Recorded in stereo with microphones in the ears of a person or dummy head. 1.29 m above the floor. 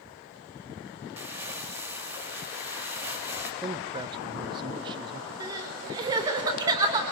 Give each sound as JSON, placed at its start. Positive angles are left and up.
{"t": 1.2, "sound": "crumpling", "side_deg": -10, "distance_m": 3.0}
{"t": 3.6, "sound": "a man speaking", "side_deg": -30, "distance_m": 0.7}
{"t": 5.4, "sound": "crying", "side_deg": -25, "distance_m": 3.5}